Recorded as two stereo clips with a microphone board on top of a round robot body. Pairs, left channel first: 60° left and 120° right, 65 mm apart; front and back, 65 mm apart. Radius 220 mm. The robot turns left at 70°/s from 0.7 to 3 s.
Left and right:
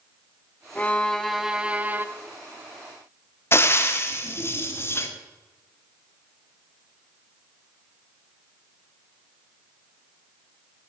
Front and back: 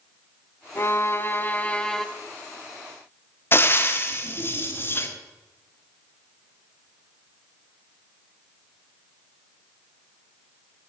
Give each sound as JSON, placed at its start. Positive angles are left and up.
{"t": 0.8, "sound": "a violin", "azimuth_deg": 10, "distance_m": 1.2}
{"t": 3.5, "sound": "frying", "azimuth_deg": 35, "distance_m": 1.9}